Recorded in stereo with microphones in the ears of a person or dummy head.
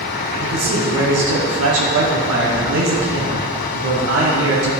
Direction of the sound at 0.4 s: 80° right.